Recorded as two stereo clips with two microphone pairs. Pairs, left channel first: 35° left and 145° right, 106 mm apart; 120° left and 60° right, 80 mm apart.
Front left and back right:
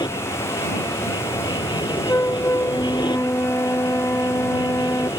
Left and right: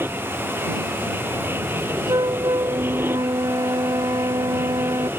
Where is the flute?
30° right.